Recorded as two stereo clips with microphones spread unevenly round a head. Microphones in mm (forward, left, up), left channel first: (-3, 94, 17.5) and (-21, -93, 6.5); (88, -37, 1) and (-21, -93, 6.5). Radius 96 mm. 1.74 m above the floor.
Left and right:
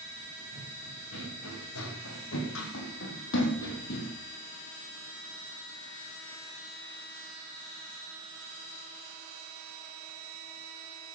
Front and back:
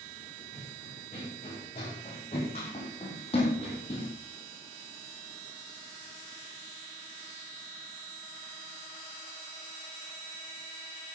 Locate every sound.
0.5 s running footsteps: 90° left, 7.5 m; by 4.1 s 70° left, 2.5 m